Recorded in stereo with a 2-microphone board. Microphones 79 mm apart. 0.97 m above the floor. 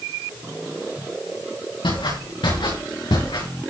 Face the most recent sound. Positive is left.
turn(degrees=80)